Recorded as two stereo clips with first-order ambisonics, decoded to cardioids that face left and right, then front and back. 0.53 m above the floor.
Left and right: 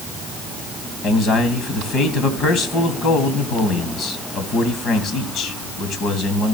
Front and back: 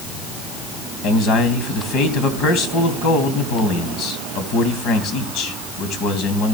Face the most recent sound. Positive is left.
turn(degrees=40)